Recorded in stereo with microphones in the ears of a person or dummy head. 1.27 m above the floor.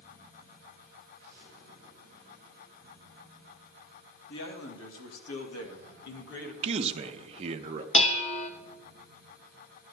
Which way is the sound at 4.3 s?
65° left (ahead or behind).